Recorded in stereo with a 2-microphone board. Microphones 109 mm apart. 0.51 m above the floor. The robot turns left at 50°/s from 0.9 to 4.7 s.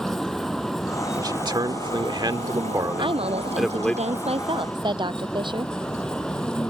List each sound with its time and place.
0.0 s a vehicle: 5° left; by 6.7 s 175° left
1.2 s a man speaking: 55° right; by 4.0 s 165° left
3.0 s a woman speaking: 50° right; by 5.7 s 135° right